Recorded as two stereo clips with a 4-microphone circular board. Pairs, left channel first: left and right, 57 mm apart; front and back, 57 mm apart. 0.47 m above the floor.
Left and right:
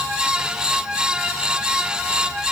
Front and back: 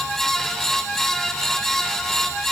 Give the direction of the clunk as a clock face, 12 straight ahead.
I don't hear a clunk.